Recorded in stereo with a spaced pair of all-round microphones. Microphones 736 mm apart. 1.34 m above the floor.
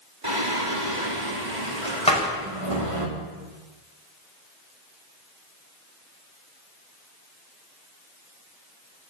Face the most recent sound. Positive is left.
turn(degrees=10)  # may be behind; listen again after turning